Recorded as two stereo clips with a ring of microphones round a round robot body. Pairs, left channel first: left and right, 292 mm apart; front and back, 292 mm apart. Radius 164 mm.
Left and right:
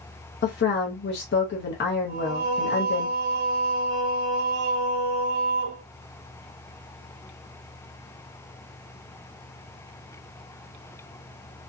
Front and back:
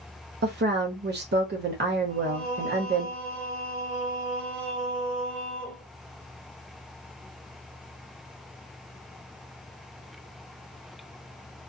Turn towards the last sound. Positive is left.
turn(degrees=-85)